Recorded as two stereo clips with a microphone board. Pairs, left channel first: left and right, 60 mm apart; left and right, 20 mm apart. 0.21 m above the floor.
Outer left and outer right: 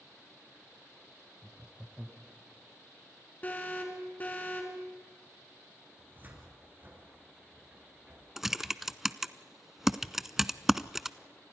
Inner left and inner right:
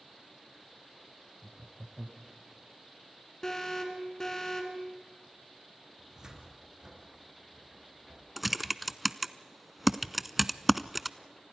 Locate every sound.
1.4 s laughter: 25° right (ahead or behind), 1.8 m
3.4 s an alarm: 30° left (ahead or behind), 4 m
6.0 s a cupboard door: 35° right (ahead or behind), 3.5 m
8.4 s typing on a keyboard: 5° right (ahead or behind), 0.6 m